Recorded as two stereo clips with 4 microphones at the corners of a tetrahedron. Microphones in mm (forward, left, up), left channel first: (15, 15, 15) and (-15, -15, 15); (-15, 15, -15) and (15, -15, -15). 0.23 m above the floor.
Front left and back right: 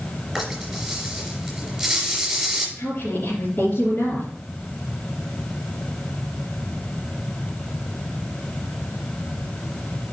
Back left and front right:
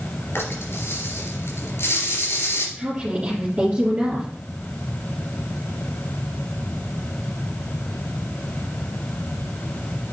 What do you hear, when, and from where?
0.3 s a rattle: 135° left, 3 m
2.8 s a woman speaking: 15° left, 3 m